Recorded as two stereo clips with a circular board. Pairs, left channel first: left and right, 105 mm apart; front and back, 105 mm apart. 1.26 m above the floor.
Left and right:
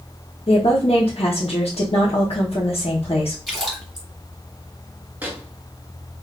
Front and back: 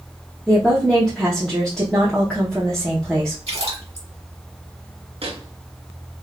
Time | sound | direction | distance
0.5 | a woman speaking | 85° left | 0.9 m
3.5 | a splash | straight behind | 1.5 m
5.2 | a microwave | 165° right | 0.7 m